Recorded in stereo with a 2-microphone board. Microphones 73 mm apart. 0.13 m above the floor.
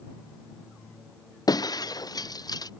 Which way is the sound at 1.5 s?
60° left (ahead or behind).